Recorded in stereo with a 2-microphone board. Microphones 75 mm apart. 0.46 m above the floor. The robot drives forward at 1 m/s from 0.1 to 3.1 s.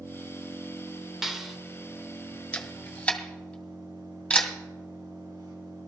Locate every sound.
0.0 s an engine running: 55° right (ahead or behind), 4 m; by 5.9 s 75° right (ahead or behind), 3.5 m
1.2 s a clap: 5° right (ahead or behind), 1.4 m
2.5 s a camera shutter: 20° left (ahead or behind), 1.6 m; by 4.5 s 15° left (ahead or behind), 2 m